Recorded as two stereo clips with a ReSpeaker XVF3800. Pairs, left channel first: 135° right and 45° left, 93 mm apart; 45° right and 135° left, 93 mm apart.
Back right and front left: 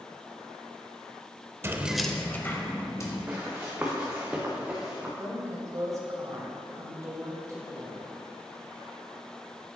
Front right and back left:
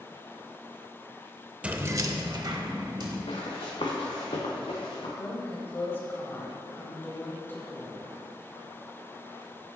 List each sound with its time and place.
1.6 s keys jangling: 70° left, 0.5 m; by 3.2 s 170° left, 1.5 m
3.3 s running footsteps: 25° right, 2.0 m; by 5.1 s 35° right, 3 m
5.2 s a woman speaking: 10° left, 2 m